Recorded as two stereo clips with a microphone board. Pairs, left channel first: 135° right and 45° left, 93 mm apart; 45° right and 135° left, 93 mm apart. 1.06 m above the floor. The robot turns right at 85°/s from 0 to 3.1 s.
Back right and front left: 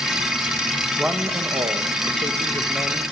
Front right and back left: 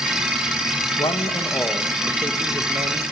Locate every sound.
1.0 s a man speaking: 40° right, 1.1 m; by 3.0 s 135° left, 1.1 m